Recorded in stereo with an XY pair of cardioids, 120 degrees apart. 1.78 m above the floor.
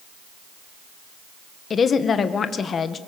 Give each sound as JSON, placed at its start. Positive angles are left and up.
{"t": 1.7, "sound": "a woman speaking", "azimuth_deg": 40, "distance_m": 1.8}